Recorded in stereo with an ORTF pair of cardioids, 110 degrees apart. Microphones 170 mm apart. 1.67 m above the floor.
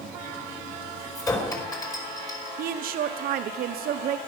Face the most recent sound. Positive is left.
turn(degrees=-60)